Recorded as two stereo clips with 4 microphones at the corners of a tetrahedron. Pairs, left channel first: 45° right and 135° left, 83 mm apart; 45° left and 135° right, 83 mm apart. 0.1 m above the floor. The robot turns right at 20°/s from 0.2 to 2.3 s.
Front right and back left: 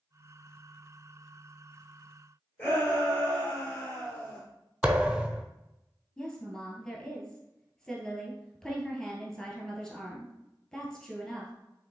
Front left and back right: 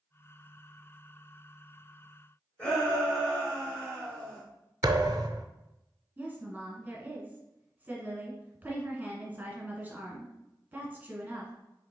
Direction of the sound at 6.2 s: 115° right.